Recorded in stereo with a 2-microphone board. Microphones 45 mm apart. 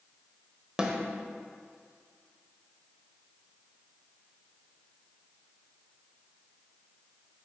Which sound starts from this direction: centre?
A snare drum, at 0.8 s.